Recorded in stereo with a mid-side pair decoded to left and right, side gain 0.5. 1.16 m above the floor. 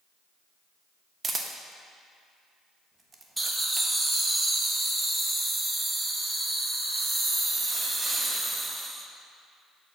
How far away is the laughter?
About 1.2 m.